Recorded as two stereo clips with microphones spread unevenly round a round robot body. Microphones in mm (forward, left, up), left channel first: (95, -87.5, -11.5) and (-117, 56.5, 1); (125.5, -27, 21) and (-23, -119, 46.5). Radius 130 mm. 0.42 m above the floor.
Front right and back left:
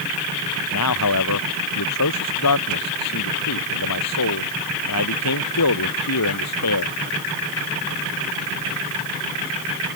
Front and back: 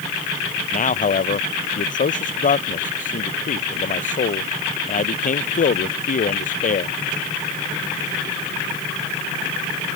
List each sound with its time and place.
0.7 s a man speaking: 5° right